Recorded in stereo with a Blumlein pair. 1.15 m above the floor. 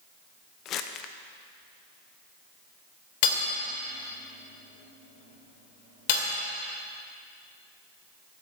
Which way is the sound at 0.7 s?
35° left.